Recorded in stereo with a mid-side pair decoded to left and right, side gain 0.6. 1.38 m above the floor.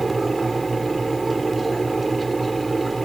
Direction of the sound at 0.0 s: 15° right.